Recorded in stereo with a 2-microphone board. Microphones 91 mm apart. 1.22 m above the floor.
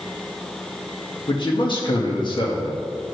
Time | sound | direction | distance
1.3 | a man speaking | 70° left (ahead or behind) | 2 m